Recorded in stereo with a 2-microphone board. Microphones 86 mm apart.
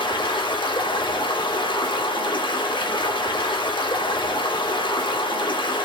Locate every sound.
0.0 s running water: 85° left, 2.5 m